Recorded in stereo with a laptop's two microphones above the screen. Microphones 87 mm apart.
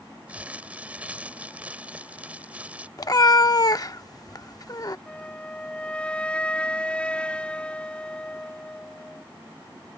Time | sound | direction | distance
0.3 | crumpling | 15° right (ahead or behind) | ?
3.0 | a cat meowing | 45° left (ahead or behind) | ?
5.1 | a flute | 15° left (ahead or behind) | ?